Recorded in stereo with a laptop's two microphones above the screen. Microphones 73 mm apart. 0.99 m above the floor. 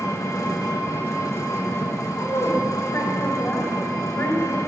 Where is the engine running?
45° left (ahead or behind), 0.9 m.